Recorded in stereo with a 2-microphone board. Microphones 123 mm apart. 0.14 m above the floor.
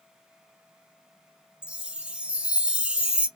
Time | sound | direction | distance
1.6 | a chime | 10° right (ahead or behind) | 0.6 m